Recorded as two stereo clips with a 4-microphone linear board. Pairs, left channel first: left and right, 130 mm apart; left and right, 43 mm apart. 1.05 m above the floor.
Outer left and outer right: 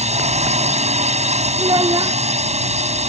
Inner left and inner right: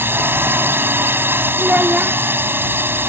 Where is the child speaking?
35° right (ahead or behind).